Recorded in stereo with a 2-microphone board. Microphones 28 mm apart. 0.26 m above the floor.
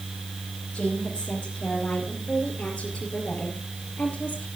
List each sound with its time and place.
0.7 s a woman speaking: 30° left (ahead or behind), 6.5 m; by 4.5 s 45° left (ahead or behind), 5 m